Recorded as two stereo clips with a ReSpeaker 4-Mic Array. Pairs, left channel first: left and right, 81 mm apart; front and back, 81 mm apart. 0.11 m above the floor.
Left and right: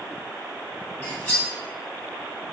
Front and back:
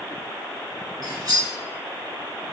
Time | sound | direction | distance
1.0 | cutlery clinking | 165° left | 1.5 m